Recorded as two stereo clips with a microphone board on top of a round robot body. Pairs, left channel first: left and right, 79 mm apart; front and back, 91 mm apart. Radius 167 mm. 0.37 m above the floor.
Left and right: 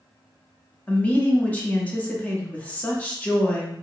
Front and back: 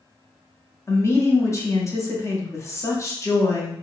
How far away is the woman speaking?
About 1.2 m.